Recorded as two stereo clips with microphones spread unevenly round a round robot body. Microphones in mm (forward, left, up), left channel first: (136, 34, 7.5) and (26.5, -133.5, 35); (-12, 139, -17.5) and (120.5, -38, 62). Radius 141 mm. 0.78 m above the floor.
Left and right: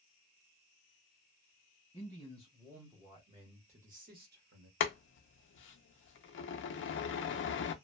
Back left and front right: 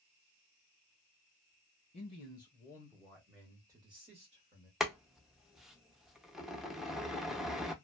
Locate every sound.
1.9 s a man speaking: 120° left, 1.3 m; by 4.7 s 115° right, 1.3 m
4.8 s boiling: 30° left, 0.6 m